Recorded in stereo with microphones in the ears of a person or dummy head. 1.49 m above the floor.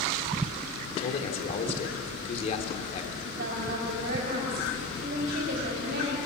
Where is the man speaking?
40° left (ahead or behind), 3.5 m.